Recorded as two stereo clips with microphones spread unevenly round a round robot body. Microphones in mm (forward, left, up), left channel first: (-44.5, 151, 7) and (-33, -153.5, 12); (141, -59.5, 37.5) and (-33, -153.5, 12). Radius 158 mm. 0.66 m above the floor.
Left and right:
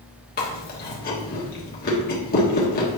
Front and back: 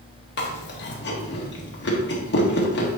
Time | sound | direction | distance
0.4 | chewing | 40° left | 1.4 m